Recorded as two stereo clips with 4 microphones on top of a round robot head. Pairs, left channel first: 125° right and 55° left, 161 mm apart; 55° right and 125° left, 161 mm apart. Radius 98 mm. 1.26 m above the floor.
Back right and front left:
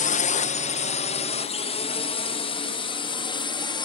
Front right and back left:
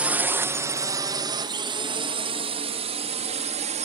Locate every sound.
0.0 s a drone: 155° right; by 3.9 s 175° left